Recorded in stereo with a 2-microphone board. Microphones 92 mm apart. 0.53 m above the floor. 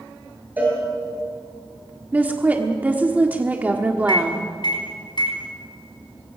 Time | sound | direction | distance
0.6 | a cowbell | 20° right (ahead or behind) | 7.5 m
2.1 | a woman speaking | 15° right (ahead or behind) | 1.4 m
4.1 | a microwave | 55° left (ahead or behind) | 4.5 m